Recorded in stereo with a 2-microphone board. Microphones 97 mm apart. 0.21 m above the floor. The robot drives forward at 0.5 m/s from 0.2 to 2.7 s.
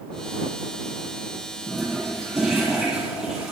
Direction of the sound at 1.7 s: 5° right (ahead or behind).